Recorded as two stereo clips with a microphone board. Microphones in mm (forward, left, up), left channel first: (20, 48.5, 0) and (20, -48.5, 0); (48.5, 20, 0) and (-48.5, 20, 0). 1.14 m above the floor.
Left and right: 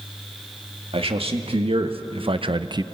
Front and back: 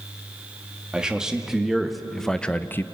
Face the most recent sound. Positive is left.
turn(degrees=-55)